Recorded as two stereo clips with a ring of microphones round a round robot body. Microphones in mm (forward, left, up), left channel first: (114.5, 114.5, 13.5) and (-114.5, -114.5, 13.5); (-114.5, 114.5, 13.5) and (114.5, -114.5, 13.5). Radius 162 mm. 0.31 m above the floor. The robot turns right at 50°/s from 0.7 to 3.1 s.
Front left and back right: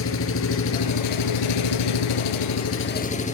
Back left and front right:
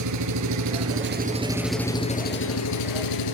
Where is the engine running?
5° right, 3.5 m; by 3.3 s 115° left, 3.5 m.